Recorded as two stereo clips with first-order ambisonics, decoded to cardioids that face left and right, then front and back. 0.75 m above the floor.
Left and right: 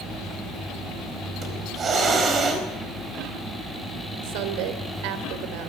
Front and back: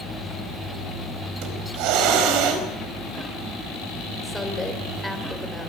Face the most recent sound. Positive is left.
turn(degrees=-90)